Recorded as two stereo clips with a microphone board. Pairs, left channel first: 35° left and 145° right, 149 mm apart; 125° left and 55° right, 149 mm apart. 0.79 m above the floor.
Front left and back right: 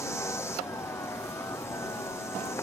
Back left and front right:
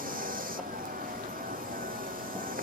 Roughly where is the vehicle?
Ahead right.